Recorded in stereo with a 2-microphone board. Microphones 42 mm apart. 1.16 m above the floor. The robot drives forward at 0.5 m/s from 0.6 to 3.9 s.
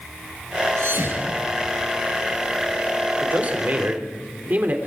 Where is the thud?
80° right, 6.5 m; by 1.8 s 75° right (ahead or behind), 6.5 m.